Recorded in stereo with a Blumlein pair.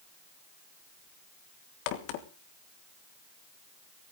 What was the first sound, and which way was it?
A crack, 45° left.